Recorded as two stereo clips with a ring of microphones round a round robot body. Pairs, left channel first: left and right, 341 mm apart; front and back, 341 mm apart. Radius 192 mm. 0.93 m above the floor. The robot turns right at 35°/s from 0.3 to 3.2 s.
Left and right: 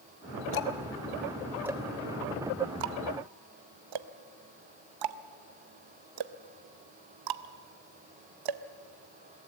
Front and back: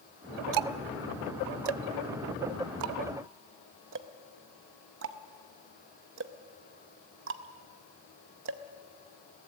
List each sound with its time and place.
0.5 s ticking: 145° left, 0.6 m; by 8.6 s 120° right, 0.6 m